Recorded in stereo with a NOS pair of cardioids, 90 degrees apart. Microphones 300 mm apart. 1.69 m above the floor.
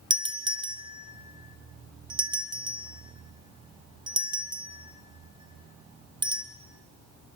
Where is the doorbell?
15° right, 1.8 m.